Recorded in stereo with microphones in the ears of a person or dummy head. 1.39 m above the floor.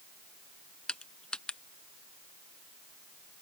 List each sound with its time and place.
0.9 s crushing: 5° left (ahead or behind)